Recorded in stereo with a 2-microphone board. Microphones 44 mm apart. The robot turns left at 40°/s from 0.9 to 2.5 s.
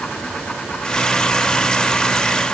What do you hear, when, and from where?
Only background noise.